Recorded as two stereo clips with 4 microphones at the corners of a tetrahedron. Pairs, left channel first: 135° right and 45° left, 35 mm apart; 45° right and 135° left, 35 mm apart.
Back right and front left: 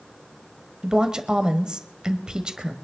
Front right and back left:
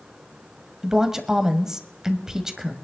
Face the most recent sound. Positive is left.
turn(degrees=80)